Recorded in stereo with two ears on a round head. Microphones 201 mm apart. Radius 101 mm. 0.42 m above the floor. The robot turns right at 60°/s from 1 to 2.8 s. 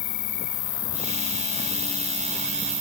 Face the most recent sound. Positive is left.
turn(degrees=-160)